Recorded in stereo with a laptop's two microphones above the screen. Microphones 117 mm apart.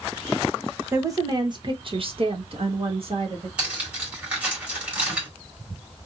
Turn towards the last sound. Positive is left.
turn(degrees=-10)  # may be behind; listen again after turning